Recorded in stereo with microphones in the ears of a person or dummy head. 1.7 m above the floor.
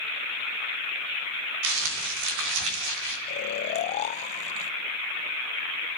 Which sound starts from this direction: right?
Crumpling, at 1.6 s.